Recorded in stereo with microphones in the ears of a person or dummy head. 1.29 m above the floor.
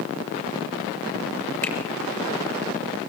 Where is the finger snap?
10° left (ahead or behind), 5 m.